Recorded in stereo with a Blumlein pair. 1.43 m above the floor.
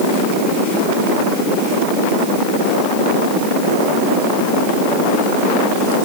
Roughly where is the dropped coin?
I don't hear a dropped coin.